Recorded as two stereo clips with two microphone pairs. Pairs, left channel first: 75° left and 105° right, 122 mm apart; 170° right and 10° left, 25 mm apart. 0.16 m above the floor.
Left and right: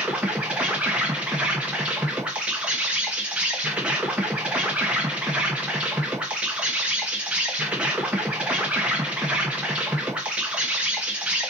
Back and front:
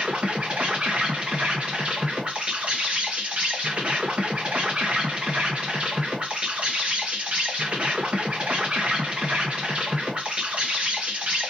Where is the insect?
25° right, 1.0 m.